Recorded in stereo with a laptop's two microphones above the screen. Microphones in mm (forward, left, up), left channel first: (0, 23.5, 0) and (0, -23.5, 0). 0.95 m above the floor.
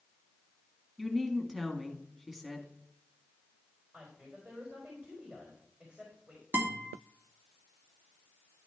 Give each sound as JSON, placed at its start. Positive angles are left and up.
{"t": 1.0, "sound": "a woman speaking", "side_deg": -5, "distance_m": 1.3}
{"t": 3.9, "sound": "a woman speaking", "side_deg": -30, "distance_m": 4.0}
{"t": 6.5, "sound": "a guitar", "side_deg": -40, "distance_m": 2.0}